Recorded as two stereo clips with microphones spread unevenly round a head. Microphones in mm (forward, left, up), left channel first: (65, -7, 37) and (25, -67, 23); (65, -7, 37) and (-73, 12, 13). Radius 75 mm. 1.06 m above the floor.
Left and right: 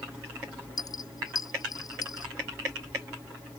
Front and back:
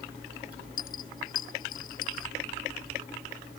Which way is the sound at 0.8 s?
25° left.